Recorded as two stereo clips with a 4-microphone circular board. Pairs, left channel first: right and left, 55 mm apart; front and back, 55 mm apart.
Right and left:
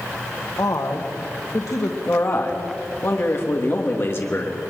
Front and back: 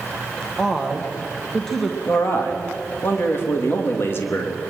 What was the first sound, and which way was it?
A woman speaking, 85° right.